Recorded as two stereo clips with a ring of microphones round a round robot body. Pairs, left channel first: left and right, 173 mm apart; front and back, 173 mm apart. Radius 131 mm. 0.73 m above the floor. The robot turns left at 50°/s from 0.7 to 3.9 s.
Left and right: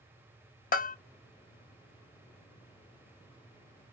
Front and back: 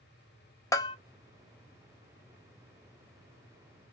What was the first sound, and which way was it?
A bell, 70° left.